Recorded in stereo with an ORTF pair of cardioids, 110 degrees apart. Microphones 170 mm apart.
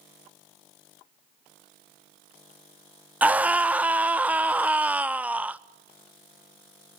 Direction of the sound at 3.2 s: 10° right.